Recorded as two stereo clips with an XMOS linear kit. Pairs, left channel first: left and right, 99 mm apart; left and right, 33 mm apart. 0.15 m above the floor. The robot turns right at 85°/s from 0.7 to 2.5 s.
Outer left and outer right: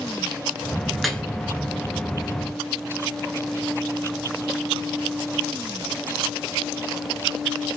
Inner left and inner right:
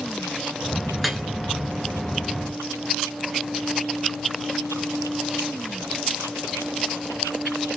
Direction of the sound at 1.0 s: 5° right (ahead or behind).